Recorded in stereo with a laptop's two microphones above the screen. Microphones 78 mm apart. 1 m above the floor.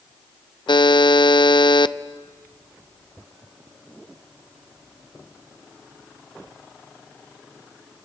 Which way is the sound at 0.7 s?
75° left (ahead or behind).